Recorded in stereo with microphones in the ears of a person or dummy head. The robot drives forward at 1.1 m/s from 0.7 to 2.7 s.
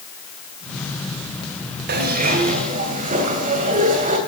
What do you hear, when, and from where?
1.9 s a zipper: 55° right (ahead or behind), 2.0 m; by 4.2 s 40° right (ahead or behind), 2.5 m